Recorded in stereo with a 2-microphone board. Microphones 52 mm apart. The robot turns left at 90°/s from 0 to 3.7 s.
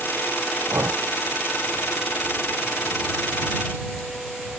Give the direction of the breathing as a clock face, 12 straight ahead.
2 o'clock.